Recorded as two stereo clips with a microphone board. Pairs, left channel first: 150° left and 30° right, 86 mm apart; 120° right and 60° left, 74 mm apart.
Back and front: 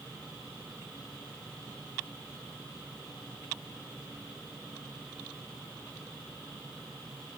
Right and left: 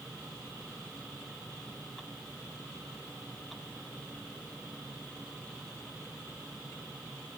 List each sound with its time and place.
Only background noise.